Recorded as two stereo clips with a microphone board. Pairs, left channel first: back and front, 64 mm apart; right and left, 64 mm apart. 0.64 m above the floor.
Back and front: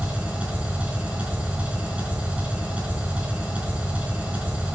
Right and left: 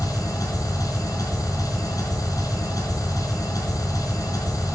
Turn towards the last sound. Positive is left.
turn(degrees=-70)